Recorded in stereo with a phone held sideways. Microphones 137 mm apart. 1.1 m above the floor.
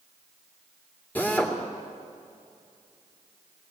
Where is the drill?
10° left (ahead or behind), 2.5 m.